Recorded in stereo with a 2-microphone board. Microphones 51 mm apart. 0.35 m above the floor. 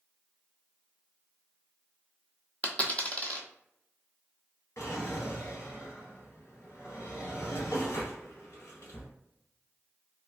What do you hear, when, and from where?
2.6 s a dropped coin: 30° left (ahead or behind), 0.7 m
4.8 s a drawer: 70° left (ahead or behind), 1.3 m